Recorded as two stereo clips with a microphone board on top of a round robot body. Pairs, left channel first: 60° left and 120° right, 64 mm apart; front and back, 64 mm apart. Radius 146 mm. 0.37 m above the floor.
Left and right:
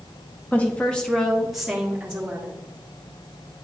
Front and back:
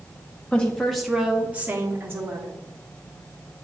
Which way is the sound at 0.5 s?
40° left.